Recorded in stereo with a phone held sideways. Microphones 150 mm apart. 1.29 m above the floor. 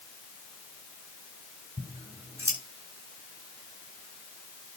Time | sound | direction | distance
1.8 | scissors | 15° right (ahead or behind) | 8.5 m